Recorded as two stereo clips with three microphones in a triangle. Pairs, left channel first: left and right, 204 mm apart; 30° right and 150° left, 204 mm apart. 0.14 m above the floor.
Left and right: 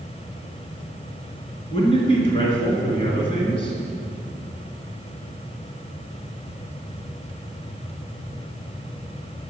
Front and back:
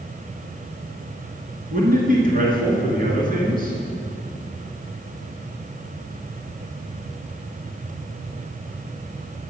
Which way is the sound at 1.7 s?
140° left.